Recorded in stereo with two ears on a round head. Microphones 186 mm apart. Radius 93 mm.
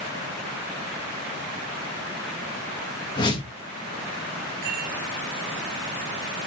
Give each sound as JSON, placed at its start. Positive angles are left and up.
{"t": 3.2, "sound": "a whoosh", "side_deg": 20, "distance_m": 1.5}
{"t": 4.6, "sound": "a rattle", "side_deg": -45, "distance_m": 5.0}